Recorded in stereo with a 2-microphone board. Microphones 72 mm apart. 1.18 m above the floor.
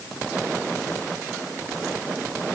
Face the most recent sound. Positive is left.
No sound to turn to.